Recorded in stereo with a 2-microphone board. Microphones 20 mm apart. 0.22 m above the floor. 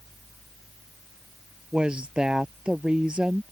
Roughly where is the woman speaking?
Right.